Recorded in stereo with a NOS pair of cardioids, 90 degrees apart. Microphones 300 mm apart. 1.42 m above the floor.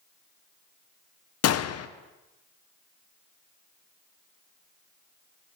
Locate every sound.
1.4 s a gunshot: 55° left, 0.9 m